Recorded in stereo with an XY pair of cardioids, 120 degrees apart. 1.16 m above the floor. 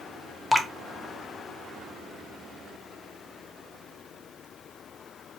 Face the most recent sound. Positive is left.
turn(degrees=10)